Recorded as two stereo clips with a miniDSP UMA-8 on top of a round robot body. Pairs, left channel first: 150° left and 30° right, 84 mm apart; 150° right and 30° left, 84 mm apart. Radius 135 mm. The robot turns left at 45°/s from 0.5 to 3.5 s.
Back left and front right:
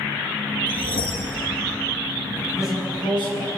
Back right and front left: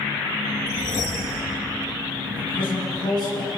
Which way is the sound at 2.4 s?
145° right.